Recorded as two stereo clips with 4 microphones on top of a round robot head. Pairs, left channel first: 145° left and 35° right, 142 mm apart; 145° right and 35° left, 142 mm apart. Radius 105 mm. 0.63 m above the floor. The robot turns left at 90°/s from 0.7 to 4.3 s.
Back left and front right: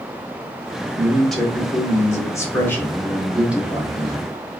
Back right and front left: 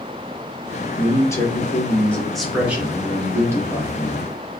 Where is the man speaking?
100° right, 1.1 m; by 4.6 s 40° right, 1.1 m.